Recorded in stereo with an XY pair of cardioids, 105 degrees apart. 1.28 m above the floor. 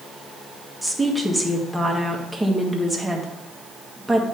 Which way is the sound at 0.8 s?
5° right.